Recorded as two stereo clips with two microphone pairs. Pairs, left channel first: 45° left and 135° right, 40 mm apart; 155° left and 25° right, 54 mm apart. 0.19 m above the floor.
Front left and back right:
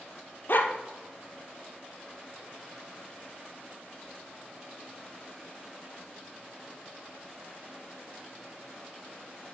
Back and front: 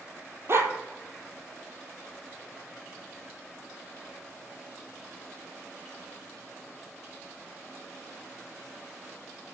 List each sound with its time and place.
0.5 s a dog barking: 15° left, 1.2 m